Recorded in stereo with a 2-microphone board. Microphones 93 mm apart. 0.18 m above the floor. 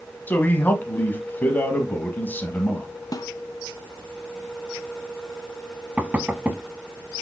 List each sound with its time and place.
0.3 s a man speaking: 20° left (ahead or behind), 1.5 m
3.1 s a snare drum: 45° left (ahead or behind), 0.8 m
6.0 s knocking: 15° right (ahead or behind), 0.8 m